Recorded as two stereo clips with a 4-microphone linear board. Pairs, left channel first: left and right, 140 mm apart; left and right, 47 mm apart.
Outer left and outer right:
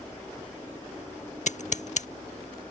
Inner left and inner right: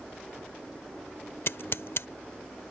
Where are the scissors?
60° left (ahead or behind).